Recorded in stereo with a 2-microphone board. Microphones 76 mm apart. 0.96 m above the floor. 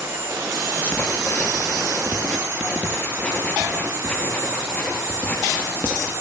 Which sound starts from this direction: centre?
Writing, at 0.8 s.